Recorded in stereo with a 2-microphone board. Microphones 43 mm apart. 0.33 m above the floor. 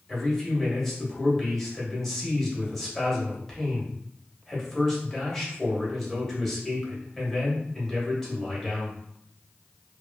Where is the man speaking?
5° left (ahead or behind), 1.1 m.